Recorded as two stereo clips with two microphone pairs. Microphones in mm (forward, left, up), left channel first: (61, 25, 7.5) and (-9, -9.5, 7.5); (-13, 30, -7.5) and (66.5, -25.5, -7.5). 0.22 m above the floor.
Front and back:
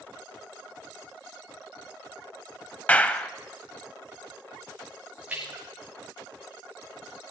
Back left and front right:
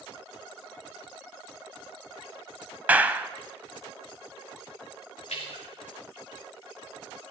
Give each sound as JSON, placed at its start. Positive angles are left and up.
{"t": 2.9, "sound": "a clap", "azimuth_deg": 0, "distance_m": 0.7}
{"t": 5.3, "sound": "a splash", "azimuth_deg": 135, "distance_m": 7.5}